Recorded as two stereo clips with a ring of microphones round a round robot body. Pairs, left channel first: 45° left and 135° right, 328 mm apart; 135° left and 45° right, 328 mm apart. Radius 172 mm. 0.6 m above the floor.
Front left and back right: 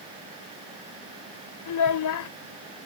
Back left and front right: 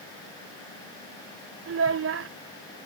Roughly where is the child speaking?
Ahead.